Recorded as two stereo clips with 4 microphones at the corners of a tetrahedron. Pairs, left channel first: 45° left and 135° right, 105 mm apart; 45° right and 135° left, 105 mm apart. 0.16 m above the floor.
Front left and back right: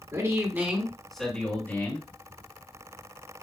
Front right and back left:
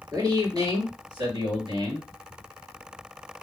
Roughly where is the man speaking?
Behind.